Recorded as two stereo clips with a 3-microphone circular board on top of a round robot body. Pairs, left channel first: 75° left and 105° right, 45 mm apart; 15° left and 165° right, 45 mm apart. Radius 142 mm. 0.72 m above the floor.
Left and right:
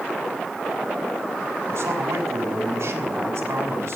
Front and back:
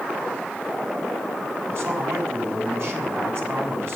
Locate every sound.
1.7 s a man speaking: 125° right, 6 m